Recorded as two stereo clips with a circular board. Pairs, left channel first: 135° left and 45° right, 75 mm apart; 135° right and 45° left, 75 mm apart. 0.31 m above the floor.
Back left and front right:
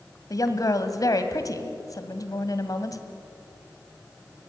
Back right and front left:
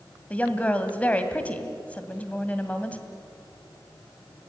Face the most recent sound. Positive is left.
turn(degrees=155)